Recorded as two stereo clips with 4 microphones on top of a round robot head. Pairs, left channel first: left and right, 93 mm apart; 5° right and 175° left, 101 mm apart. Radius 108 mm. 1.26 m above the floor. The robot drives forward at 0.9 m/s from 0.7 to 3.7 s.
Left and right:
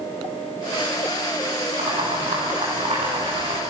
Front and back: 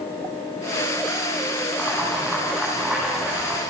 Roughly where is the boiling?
Right.